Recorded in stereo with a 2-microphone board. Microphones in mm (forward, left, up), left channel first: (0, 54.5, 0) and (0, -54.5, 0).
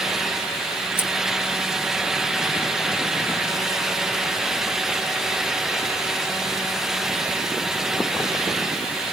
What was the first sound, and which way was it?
Scissors, 20° left (ahead or behind).